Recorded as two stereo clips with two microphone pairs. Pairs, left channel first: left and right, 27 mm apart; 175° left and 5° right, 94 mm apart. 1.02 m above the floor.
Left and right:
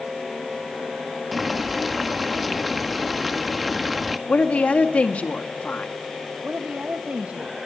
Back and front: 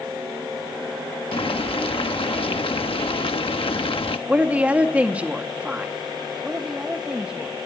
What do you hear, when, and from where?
1.3 s boiling: 175° right, 1.2 m
4.3 s a woman speaking: 70° left, 2.0 m
6.4 s a woman speaking: 85° right, 1.3 m